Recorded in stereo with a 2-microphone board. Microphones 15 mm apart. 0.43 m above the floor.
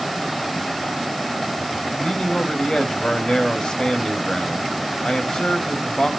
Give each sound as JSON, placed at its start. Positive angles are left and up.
{"t": 2.0, "sound": "a man speaking", "side_deg": 65, "distance_m": 2.5}